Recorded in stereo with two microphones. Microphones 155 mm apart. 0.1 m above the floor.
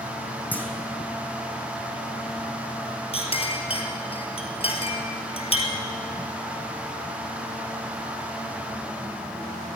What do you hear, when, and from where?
0.5 s a clunk: 10° left (ahead or behind), 1.3 m
3.1 s a clink: 40° left (ahead or behind), 1.6 m